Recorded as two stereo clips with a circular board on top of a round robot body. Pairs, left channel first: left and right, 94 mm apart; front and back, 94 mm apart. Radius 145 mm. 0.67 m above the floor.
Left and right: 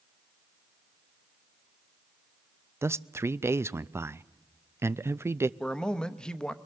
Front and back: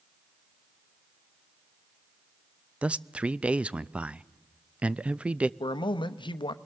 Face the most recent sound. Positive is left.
turn(degrees=10)